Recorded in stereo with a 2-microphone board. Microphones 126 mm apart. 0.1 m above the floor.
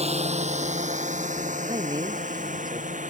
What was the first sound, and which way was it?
A drone, 55° right (ahead or behind).